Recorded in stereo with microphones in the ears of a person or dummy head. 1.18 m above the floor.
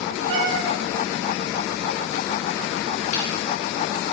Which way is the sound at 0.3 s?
50° right (ahead or behind).